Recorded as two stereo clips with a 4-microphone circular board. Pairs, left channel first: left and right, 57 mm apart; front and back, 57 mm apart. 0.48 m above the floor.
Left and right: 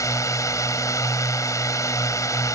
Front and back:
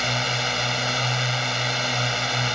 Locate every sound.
0.0 s a drone: 90° left